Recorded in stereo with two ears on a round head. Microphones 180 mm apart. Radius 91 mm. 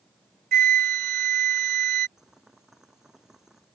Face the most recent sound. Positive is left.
turn(degrees=0)  # may be behind; listen again after turning